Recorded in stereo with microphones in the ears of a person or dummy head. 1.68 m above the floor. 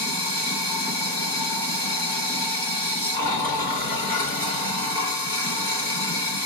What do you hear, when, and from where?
0.0 s running water: 30° left (ahead or behind), 3 m